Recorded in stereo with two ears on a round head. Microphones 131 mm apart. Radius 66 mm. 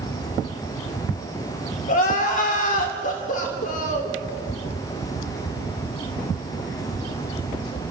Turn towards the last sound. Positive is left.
turn(degrees=55)  # may be behind; listen again after turning